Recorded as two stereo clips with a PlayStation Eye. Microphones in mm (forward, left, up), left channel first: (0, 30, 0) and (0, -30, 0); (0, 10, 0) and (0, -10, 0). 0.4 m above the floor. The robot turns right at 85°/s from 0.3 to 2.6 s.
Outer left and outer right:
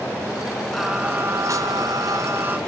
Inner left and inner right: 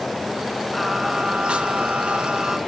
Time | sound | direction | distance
0.7 | singing | 175° left | 2.5 m